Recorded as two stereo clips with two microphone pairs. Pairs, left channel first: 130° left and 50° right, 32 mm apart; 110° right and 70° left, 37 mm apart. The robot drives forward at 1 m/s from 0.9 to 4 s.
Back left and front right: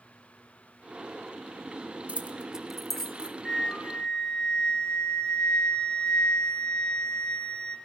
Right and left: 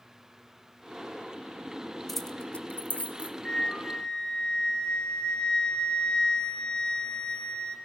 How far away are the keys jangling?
About 0.6 m.